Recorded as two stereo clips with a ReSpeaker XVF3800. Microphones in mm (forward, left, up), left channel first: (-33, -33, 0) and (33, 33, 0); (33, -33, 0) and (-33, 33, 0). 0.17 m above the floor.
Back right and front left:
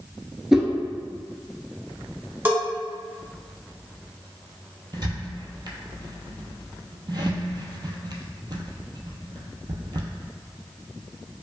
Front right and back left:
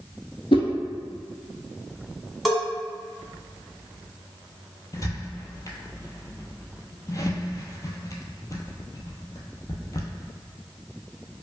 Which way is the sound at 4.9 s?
5° left.